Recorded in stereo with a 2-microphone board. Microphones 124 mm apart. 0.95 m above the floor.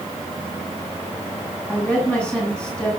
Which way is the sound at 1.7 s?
10° left (ahead or behind).